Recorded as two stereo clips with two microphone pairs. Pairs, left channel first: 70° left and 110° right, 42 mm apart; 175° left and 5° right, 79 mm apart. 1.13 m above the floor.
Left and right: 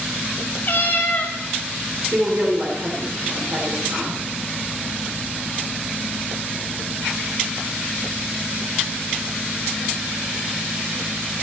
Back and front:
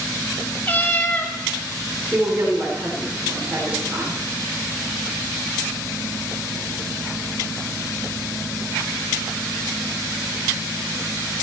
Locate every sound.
0.6 s a cat meowing: 110° left, 1.3 m
2.1 s a woman speaking: 75° right, 3 m